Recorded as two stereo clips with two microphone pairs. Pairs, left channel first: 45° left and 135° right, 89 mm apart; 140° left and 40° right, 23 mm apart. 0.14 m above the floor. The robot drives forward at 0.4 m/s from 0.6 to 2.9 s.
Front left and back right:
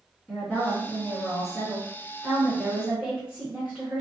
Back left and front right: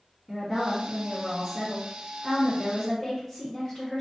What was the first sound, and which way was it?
A woman speaking, 15° right.